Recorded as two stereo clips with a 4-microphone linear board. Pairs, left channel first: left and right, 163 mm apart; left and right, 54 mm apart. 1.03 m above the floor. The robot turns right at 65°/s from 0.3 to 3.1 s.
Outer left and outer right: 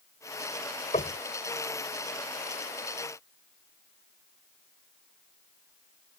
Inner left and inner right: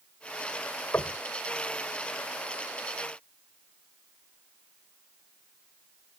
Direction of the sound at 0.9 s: 50° left (ahead or behind).